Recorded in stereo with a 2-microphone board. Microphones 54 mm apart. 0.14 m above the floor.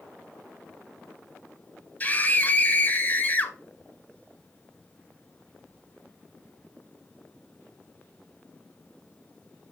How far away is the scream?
About 1.3 m.